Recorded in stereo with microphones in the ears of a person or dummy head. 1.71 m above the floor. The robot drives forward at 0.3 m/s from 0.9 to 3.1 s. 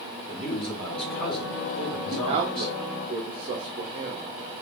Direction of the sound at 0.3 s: 5° left (ahead or behind).